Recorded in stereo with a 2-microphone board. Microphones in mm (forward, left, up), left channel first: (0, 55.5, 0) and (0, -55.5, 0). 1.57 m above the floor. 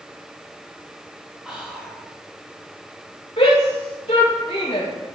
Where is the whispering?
5° right (ahead or behind), 3 m.